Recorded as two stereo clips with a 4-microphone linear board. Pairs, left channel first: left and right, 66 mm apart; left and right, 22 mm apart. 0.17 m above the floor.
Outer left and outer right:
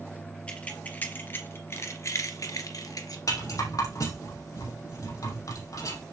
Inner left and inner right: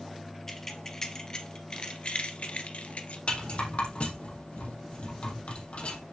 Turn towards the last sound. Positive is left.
turn(degrees=60)  # may be behind; listen again after turning